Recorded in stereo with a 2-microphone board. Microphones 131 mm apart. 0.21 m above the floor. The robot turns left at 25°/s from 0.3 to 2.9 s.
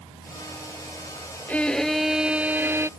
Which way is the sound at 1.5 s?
10° left.